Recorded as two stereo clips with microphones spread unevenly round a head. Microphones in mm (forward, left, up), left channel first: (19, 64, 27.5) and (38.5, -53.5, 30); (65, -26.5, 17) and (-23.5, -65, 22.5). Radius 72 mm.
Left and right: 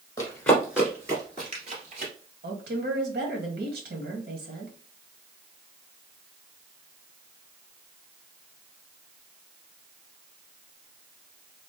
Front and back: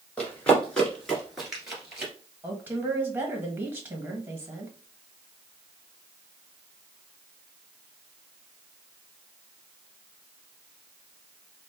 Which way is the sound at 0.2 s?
80° left.